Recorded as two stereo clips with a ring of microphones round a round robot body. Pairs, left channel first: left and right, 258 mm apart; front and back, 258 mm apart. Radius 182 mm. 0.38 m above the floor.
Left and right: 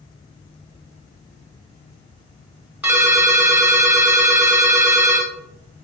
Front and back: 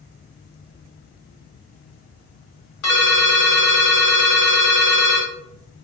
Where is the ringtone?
5° right, 1.7 m.